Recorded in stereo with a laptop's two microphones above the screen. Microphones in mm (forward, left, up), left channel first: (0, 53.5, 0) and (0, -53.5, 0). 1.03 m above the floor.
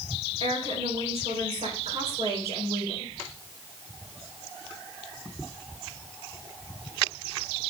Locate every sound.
0.4 s a woman speaking: 65° right (ahead or behind), 3.5 m